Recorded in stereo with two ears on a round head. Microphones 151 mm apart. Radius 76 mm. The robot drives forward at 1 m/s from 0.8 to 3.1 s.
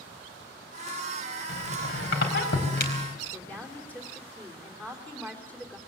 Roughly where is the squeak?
Left.